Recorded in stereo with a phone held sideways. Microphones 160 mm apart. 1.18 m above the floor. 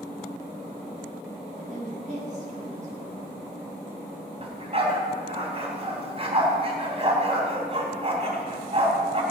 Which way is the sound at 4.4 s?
35° right (ahead or behind).